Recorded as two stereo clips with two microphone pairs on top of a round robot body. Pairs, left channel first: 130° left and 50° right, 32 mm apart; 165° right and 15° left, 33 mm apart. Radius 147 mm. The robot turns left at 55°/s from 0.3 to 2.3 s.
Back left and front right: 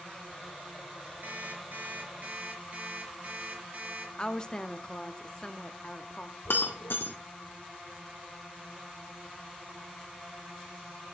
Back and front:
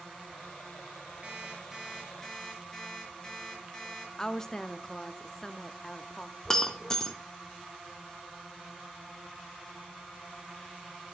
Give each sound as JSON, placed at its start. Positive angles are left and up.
{"t": 1.2, "sound": "an alarm clock", "azimuth_deg": -35, "distance_m": 4.5}
{"t": 4.2, "sound": "a woman speaking", "azimuth_deg": -175, "distance_m": 0.9}
{"t": 6.5, "sound": "breaking glass", "azimuth_deg": 125, "distance_m": 1.1}